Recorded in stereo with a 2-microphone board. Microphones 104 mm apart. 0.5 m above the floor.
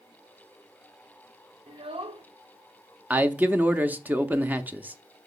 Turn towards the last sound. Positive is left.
turn(degrees=-15)  # may be behind; listen again after turning